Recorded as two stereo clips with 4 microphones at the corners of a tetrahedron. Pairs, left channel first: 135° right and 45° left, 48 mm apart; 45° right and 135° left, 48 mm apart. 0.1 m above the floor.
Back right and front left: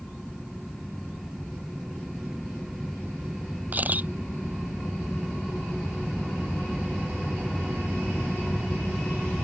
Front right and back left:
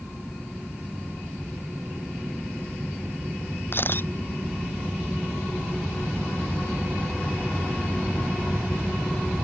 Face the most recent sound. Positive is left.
turn(degrees=-5)